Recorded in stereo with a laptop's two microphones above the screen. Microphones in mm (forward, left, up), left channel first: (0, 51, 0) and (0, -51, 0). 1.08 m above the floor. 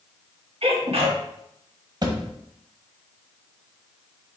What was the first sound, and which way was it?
A sneeze, 75° right (ahead or behind).